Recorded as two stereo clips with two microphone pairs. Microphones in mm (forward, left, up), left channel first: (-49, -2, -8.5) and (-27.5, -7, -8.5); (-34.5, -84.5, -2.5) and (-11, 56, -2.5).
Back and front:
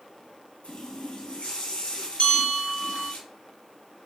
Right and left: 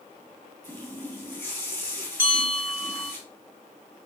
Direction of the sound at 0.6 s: 170° right.